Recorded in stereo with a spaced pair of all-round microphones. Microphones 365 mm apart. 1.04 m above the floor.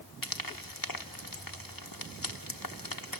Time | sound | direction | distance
0.2 | frying | 65° left (ahead or behind) | 1.2 m